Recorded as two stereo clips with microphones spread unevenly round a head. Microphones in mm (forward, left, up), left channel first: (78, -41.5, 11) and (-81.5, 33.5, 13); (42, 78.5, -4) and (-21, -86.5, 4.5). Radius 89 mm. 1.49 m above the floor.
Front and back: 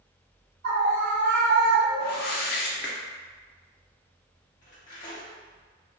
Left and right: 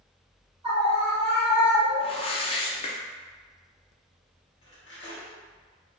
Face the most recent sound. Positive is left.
turn(degrees=15)